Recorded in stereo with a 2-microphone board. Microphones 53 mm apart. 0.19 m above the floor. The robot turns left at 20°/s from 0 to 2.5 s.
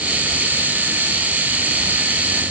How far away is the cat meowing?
No cat meowing in this recording.